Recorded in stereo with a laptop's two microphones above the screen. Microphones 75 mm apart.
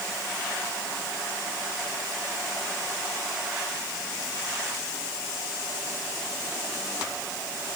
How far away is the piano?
No piano in this recording.